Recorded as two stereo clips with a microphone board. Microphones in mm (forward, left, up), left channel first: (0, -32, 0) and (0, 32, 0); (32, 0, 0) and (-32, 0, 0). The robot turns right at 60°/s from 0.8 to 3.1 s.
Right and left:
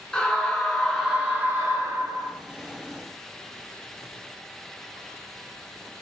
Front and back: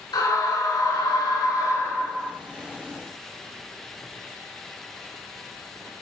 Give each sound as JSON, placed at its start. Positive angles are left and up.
{"t": 0.1, "sound": "a scream", "azimuth_deg": -15, "distance_m": 5.5}